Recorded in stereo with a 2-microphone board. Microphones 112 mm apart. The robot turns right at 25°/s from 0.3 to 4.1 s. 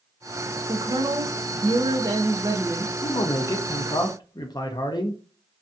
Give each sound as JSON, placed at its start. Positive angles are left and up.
{"t": 0.7, "sound": "a woman speaking", "azimuth_deg": -75, "distance_m": 0.5}
{"t": 3.0, "sound": "a man speaking", "side_deg": 45, "distance_m": 0.5}